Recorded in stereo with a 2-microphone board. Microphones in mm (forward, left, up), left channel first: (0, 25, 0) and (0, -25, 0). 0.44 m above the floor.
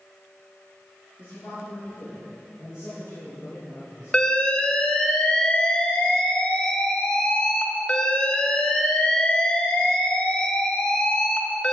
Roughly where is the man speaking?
Left.